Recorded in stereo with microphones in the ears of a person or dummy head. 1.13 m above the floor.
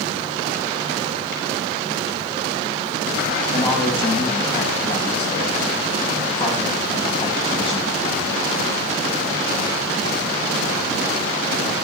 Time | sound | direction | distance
3.5 | a man speaking | 20° left (ahead or behind) | 7 m